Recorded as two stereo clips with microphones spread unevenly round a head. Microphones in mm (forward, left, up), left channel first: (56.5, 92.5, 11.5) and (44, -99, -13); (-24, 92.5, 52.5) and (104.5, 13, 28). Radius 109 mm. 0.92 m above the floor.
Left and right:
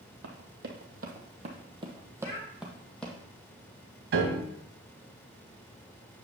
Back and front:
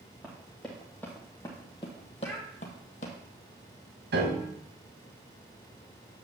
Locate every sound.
0.2 s running footsteps: 125° right, 1.5 m; by 3.1 s 160° left, 1.4 m
2.2 s a child speaking: 65° left, 4.5 m
4.1 s a piano: 70° right, 1.7 m